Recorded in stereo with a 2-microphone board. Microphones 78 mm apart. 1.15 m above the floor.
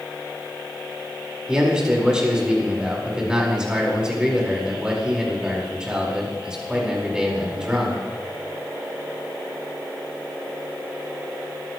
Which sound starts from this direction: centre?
A man speaking, at 1.5 s.